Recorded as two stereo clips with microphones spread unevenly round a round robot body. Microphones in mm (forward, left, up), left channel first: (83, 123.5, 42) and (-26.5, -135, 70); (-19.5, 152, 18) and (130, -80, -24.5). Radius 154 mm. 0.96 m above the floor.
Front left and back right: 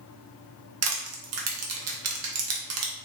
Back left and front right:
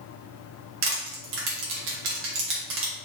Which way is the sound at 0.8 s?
85° right.